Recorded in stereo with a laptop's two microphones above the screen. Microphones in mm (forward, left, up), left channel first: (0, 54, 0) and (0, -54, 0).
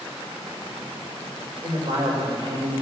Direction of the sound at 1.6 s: 40° right (ahead or behind).